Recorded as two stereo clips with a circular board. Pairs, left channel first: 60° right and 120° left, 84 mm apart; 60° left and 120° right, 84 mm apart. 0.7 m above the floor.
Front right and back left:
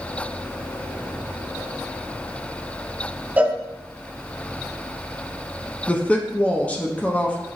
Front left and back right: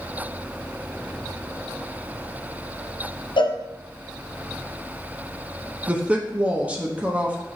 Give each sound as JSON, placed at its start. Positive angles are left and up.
{"t": 3.4, "sound": "a cowbell", "azimuth_deg": 50, "distance_m": 0.6}
{"t": 5.9, "sound": "a woman speaking", "azimuth_deg": -90, "distance_m": 0.6}